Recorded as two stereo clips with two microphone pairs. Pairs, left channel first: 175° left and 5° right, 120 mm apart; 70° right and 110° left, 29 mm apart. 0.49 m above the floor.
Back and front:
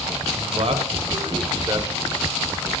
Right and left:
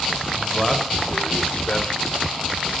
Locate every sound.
0.3 s a man speaking: 5° left, 3 m; by 2.7 s 90° right, 2.5 m